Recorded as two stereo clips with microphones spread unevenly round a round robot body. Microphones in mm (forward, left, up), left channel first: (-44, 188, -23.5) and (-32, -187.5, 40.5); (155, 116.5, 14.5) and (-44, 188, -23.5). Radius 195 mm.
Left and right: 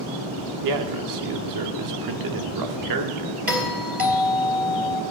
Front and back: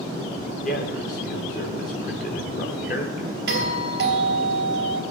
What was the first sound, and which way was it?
A man speaking, 75° right.